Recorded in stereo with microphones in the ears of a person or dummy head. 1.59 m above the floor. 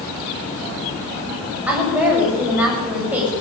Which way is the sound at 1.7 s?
10° right (ahead or behind).